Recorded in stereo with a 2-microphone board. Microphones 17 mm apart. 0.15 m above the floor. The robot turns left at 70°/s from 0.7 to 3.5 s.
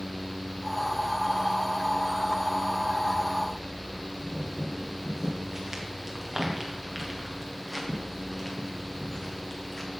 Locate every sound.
4.2 s footsteps: 25° right (ahead or behind), 3.5 m; by 9.9 s 30° left (ahead or behind), 3 m